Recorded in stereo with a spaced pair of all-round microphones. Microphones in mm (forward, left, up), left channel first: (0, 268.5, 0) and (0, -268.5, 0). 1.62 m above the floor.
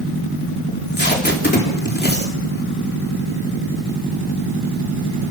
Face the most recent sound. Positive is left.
turn(degrees=20)  # may be behind; listen again after turning